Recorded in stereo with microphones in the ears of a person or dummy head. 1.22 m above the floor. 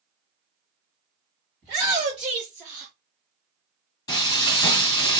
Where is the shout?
5° right (ahead or behind), 1.6 m; by 2.9 s centre (ahead or behind), 0.9 m.